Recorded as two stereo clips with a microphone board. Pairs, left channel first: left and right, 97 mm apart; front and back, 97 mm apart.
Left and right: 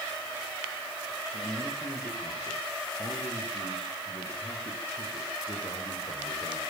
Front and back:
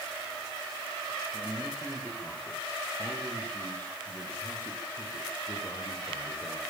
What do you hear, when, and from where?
1.3 s a man speaking: 90° left, 9 m; by 6.6 s 50° left, 6.5 m